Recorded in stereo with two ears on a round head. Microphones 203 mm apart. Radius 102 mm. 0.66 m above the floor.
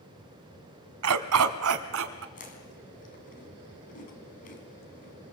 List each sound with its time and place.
1.0 s a dog barking: 75° right (ahead or behind), 1.3 m; by 2.2 s 60° right (ahead or behind), 1.9 m
2.4 s chewing: 40° left (ahead or behind), 4 m